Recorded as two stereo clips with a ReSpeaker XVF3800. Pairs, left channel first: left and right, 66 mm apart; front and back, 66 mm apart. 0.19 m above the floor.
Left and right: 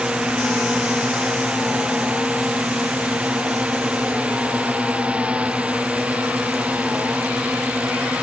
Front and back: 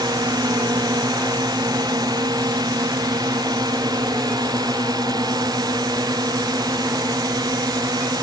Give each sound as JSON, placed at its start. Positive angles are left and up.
{"t": 0.0, "sound": "a drone", "azimuth_deg": -165}